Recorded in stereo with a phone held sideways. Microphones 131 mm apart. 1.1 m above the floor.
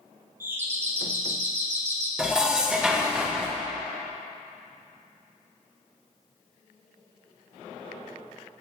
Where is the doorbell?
15° right (ahead or behind), 0.8 m.